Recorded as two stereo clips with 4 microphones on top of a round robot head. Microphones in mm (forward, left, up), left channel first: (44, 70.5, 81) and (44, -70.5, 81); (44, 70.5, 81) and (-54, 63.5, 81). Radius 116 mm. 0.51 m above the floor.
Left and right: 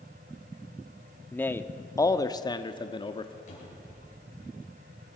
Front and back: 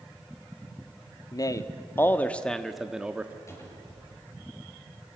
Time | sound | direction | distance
1.3 | a man speaking | 20° left | 1.1 m
3.5 | a cupboard door | 60° left | 9 m